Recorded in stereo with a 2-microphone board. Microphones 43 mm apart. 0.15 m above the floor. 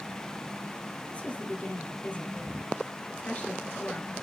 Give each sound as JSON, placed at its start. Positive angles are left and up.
{"t": 1.1, "sound": "a woman speaking", "side_deg": 25, "distance_m": 2.5}